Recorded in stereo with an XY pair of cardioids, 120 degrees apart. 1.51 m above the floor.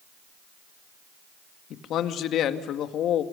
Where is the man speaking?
65° left, 2 m.